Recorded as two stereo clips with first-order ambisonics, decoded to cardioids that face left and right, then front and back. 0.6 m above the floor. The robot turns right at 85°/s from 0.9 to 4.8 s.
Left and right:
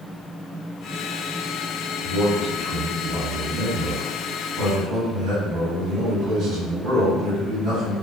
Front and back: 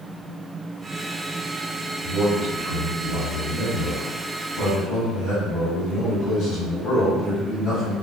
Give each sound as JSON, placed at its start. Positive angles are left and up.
{"t": 2.0, "sound": "a man speaking", "azimuth_deg": 95, "distance_m": 1.9}